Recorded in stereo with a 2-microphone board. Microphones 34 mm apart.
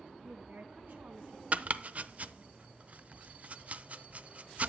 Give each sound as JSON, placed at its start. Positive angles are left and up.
{"t": 0.2, "sound": "a woman speaking", "side_deg": -65, "distance_m": 3.5}
{"t": 1.5, "sound": "chopping", "side_deg": -45, "distance_m": 0.6}